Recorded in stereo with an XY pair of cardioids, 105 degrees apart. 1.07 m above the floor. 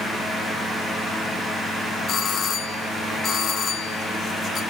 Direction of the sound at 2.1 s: 55° left.